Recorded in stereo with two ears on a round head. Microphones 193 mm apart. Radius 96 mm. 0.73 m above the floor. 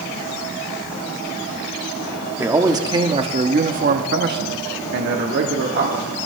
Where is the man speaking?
10° right (ahead or behind), 1.6 m; by 6.3 s 50° right (ahead or behind), 2 m.